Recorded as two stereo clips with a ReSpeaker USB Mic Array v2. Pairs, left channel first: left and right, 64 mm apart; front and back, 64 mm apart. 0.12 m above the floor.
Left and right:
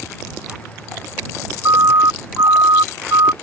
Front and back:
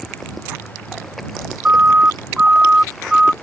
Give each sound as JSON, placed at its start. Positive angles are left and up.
{"t": 1.6, "sound": "a siren", "azimuth_deg": -115}